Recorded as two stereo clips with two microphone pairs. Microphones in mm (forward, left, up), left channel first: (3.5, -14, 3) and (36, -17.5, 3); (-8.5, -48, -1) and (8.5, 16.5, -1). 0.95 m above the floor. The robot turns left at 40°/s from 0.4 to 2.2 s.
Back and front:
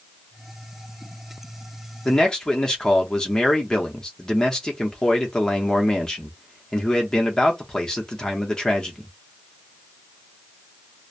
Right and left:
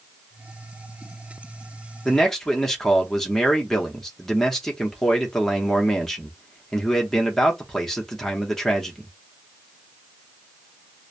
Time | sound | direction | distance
2.0 | a man speaking | 165° right | 0.9 m